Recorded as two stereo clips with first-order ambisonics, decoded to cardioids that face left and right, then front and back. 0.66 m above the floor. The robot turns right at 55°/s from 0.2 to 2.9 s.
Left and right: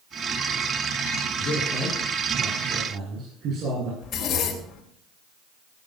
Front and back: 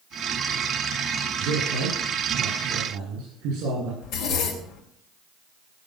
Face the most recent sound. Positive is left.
turn(degrees=35)